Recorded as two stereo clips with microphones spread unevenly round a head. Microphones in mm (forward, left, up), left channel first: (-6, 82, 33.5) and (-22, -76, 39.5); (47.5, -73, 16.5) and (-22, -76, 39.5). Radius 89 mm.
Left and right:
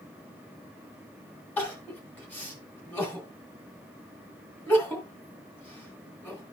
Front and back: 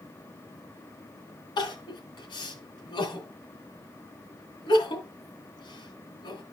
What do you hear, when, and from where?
1.6 s crying: 5° left, 2.5 m